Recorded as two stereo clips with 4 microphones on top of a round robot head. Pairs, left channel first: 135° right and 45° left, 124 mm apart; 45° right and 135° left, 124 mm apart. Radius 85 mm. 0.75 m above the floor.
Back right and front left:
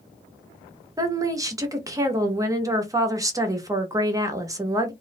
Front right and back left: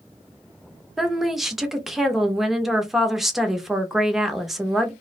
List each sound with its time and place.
1.0 s a woman speaking: 50° left, 0.7 m